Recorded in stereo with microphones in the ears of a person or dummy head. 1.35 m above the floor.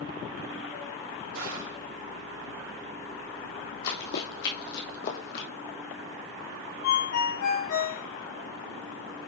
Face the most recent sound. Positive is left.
turn(degrees=75)  # may be behind; listen again after turning